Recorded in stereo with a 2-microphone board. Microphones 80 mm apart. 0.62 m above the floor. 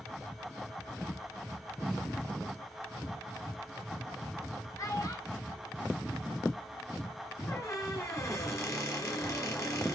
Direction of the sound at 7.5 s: 40° left (ahead or behind).